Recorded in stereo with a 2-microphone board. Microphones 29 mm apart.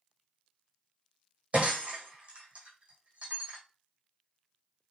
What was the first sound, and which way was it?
Breaking glass, 45° right (ahead or behind).